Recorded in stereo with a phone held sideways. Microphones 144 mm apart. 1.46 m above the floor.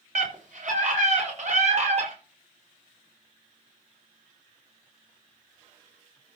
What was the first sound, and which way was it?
A scream, 60° right (ahead or behind).